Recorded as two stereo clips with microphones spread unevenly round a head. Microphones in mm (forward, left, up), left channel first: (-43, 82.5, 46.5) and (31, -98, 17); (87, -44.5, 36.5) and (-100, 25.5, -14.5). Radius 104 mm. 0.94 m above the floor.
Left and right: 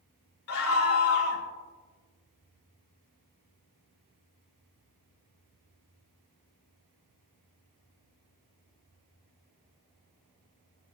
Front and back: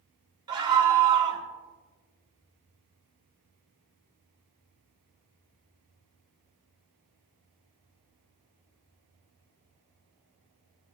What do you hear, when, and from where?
0.5 s a scream: 90° left, 3 m